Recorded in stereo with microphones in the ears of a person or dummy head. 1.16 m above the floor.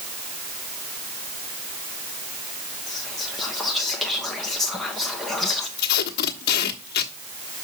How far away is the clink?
I don't hear a clink.